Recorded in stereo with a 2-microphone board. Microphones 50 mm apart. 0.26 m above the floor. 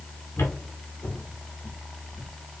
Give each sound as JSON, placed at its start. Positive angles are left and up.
{"t": 0.4, "sound": "footsteps", "side_deg": 60, "distance_m": 6.5}